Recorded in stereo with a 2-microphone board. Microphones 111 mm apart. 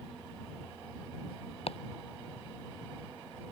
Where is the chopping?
65° left (ahead or behind).